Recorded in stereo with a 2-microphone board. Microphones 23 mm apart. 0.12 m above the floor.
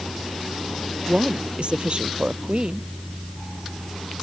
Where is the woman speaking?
50° right (ahead or behind).